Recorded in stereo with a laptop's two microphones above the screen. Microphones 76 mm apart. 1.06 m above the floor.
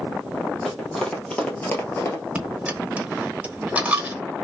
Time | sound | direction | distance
0.7 | running footsteps | 5° left (ahead or behind) | 1.9 m
2.4 | a dropped coin | 15° right (ahead or behind) | 0.9 m